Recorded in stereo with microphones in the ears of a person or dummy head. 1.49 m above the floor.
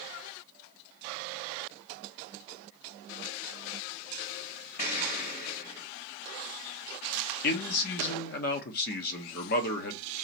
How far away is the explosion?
About 3.5 m.